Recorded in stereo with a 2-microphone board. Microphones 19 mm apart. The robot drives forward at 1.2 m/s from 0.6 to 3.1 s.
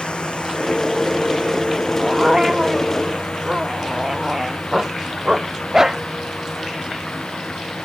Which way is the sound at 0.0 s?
70° left (ahead or behind).